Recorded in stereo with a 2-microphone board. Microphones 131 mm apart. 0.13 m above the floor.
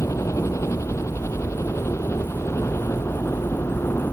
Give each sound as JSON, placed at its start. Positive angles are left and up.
{"t": 0.0, "sound": "a helicopter", "side_deg": 25}